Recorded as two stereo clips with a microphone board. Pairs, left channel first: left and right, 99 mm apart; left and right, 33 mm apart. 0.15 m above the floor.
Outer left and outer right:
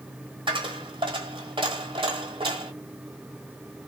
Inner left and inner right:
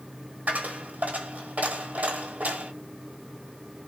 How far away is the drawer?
I don't hear a drawer.